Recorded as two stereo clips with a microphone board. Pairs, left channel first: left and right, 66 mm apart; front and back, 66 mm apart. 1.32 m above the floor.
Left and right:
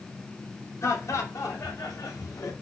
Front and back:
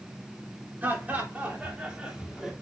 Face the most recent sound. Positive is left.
turn(degrees=95)